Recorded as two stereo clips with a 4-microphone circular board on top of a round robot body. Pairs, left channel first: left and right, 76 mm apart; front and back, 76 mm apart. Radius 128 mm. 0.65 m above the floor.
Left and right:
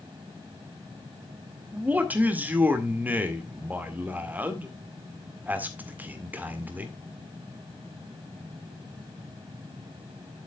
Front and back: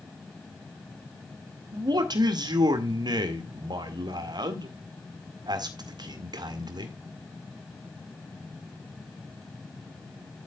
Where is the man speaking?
155° right, 2 m.